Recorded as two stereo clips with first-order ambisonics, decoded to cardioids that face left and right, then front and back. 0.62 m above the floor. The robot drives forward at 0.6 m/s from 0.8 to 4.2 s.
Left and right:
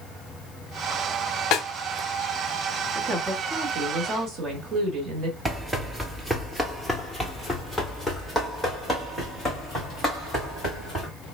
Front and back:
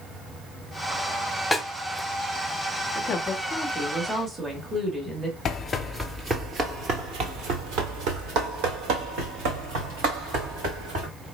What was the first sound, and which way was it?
A snare drum, 80° left.